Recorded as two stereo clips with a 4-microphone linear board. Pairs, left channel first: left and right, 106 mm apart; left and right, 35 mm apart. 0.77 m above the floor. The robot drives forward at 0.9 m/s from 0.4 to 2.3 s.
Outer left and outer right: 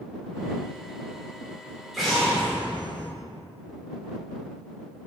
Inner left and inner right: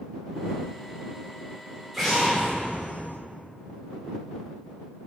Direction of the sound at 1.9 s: Centre (ahead or behind).